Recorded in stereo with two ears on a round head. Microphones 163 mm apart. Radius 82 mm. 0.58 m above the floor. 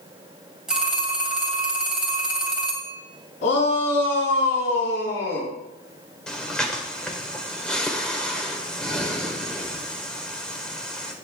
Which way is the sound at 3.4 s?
80° left.